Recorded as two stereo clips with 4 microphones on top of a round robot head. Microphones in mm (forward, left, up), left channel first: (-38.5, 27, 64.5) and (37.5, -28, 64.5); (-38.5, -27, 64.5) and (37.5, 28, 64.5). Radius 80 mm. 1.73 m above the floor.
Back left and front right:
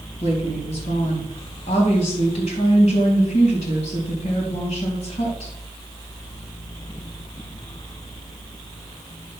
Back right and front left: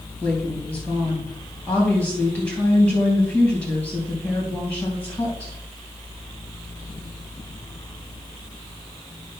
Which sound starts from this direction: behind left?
A woman speaking, at 0.2 s.